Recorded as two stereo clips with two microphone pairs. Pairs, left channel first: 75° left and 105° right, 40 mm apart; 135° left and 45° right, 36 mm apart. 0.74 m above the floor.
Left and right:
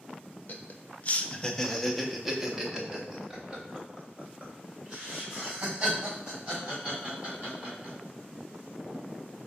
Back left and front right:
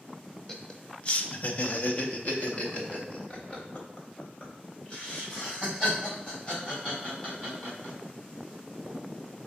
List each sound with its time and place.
0.5 s laughter: 60° left, 0.6 m; by 8.0 s 165° right, 4 m